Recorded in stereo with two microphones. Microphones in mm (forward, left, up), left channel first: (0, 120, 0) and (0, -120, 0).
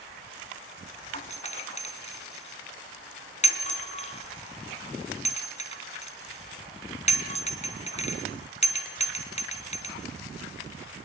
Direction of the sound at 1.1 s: 30° left (ahead or behind).